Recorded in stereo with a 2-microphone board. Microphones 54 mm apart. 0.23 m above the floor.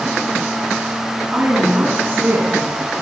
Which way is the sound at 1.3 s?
25° right (ahead or behind).